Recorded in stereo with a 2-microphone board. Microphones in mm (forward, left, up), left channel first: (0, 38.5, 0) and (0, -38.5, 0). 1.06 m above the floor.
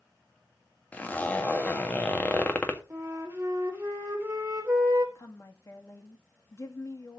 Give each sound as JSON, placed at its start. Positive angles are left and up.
{"t": 0.9, "sound": "a zipper", "side_deg": 20, "distance_m": 1.8}
{"t": 2.9, "sound": "a flute", "side_deg": -30, "distance_m": 3.5}
{"t": 5.2, "sound": "a woman speaking", "side_deg": 40, "distance_m": 2.0}